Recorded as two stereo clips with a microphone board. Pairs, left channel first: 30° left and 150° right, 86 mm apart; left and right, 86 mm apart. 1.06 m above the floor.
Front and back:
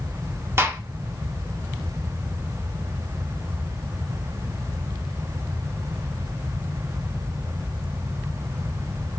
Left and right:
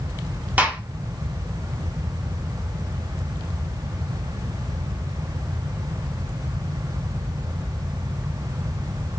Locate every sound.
0.6 s a gunshot: 140° right, 0.6 m